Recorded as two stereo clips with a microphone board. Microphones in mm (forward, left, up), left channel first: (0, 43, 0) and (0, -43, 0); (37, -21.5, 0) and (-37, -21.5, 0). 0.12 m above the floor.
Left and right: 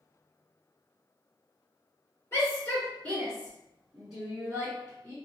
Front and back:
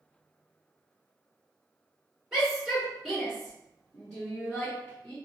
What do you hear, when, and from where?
2.3 s a shout: 105° left, 1.6 m; by 5.1 s 55° right, 1.7 m